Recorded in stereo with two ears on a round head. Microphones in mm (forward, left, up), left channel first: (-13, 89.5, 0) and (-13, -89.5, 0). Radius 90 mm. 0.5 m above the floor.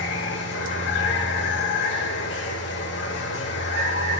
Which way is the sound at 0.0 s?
65° left (ahead or behind).